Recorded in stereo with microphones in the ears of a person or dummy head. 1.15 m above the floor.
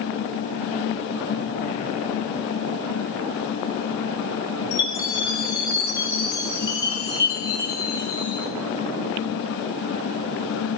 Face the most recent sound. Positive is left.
turn(degrees=20)  # may be behind; listen again after turning